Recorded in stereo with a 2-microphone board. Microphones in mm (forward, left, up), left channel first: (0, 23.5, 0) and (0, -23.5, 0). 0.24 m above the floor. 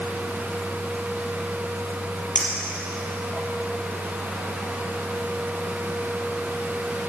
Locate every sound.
2.4 s a clink: 10° left (ahead or behind), 3.5 m